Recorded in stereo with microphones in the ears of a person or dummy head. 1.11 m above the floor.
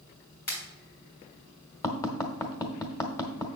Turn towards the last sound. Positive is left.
turn(degrees=15)  # may be behind; listen again after turning